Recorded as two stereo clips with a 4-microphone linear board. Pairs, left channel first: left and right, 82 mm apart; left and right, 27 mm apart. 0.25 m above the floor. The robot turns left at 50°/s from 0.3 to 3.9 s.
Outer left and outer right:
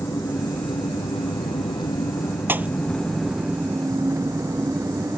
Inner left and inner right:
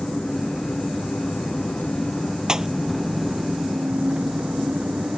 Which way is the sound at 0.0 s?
140° left.